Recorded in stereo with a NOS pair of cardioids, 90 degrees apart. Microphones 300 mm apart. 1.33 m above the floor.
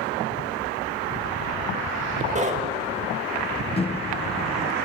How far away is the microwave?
About 0.9 m.